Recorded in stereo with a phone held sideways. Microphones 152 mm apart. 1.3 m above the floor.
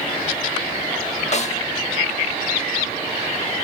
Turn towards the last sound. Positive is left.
turn(degrees=50)  # may be behind; listen again after turning